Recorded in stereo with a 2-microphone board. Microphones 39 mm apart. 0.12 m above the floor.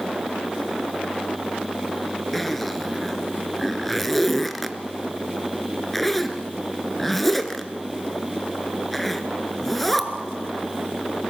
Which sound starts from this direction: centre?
A zipper, at 2.3 s.